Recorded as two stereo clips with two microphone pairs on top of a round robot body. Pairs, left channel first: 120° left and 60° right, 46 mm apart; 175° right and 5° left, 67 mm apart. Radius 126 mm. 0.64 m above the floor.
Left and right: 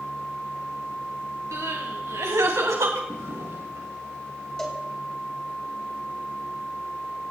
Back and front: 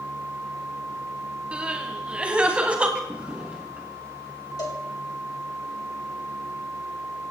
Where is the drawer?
65° right, 4 m.